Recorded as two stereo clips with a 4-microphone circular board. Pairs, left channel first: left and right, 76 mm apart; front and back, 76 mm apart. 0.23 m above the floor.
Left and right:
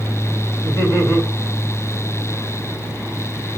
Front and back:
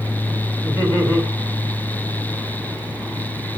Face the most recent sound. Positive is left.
turn(degrees=130)